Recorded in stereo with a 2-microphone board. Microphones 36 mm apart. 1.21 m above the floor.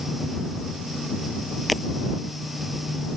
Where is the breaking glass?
Centre (ahead or behind).